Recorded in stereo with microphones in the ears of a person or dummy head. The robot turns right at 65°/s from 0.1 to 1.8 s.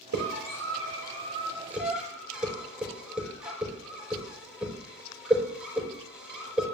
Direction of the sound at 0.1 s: 65° right (ahead or behind).